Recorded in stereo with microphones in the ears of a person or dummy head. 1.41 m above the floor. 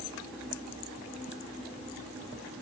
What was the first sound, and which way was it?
Only background noise.